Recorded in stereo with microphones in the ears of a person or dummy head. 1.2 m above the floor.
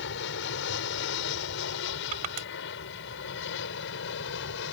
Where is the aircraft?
65° left (ahead or behind).